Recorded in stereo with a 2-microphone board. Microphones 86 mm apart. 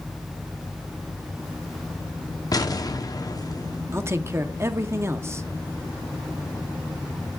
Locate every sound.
2.5 s an explosion: 45° left (ahead or behind), 0.9 m
3.9 s a man speaking: 30° right (ahead or behind), 0.8 m